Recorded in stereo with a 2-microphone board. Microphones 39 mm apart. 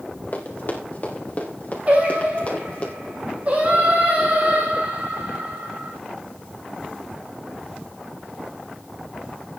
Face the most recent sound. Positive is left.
turn(degrees=-40)  # may be behind; listen again after turning